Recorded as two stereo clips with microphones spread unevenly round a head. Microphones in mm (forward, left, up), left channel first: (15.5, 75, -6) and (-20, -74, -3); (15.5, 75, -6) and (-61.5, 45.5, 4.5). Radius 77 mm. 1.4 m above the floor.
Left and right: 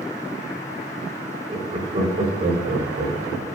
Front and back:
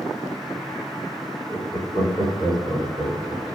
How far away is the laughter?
About 3.5 m.